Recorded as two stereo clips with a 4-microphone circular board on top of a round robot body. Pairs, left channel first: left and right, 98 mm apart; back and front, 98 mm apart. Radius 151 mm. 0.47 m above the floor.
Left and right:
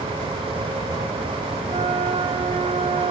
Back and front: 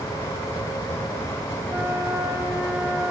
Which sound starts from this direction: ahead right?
A flute, at 1.7 s.